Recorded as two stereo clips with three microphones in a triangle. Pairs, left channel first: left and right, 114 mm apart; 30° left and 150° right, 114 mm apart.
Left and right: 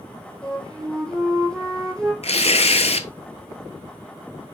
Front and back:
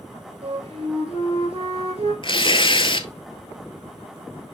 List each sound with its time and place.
0.4 s a flute: 175° left, 3.5 m
2.2 s tearing paper: 70° left, 0.8 m